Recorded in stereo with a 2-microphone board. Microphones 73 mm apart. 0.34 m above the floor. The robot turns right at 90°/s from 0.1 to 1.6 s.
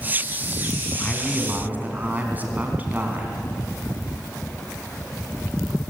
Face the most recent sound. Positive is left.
turn(degrees=-155)